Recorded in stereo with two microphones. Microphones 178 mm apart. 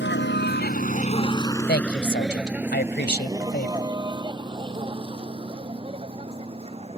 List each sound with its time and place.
0.0 s a vehicle: 85° left; by 7.0 s 30° right (ahead or behind)
1.7 s a woman speaking: 65° left (ahead or behind)